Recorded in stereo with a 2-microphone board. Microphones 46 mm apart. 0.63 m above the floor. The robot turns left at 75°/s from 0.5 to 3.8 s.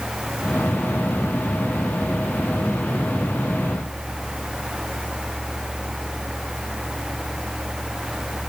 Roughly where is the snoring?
I don't hear snoring.